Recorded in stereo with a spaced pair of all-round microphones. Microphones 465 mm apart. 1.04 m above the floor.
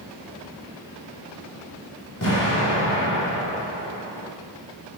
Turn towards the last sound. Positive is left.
turn(degrees=40)  # may be behind; listen again after turning